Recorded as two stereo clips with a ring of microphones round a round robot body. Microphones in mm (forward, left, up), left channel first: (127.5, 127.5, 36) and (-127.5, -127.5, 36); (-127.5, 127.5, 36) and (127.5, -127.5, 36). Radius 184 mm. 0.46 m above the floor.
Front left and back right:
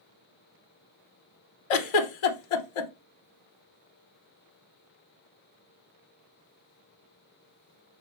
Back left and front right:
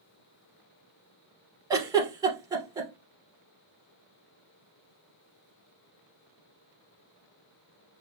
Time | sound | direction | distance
1.7 | a giggle | 35° left | 0.7 m